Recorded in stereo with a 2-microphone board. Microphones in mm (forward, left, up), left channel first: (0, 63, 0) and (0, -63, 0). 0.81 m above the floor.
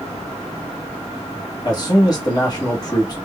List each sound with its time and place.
1.6 s a man speaking: 35° left (ahead or behind), 1.1 m